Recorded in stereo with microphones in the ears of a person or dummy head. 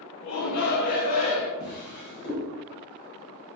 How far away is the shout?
About 0.8 m.